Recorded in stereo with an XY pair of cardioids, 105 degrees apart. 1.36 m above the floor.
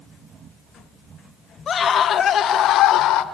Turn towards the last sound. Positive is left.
turn(degrees=75)